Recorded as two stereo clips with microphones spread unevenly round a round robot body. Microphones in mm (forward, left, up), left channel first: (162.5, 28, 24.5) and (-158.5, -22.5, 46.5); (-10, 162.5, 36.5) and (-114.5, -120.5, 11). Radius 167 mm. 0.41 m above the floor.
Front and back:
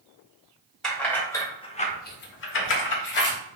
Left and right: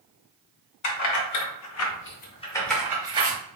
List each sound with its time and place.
0.8 s keys jangling: 95° left, 1.0 m; by 3.4 s 45° right, 0.9 m